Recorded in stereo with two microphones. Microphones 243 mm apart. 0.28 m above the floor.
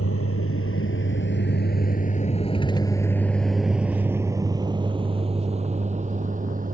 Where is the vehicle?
70° left (ahead or behind); by 6.7 s 35° right (ahead or behind).